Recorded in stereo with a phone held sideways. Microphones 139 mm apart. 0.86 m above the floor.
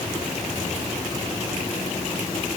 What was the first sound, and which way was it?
Only background noise.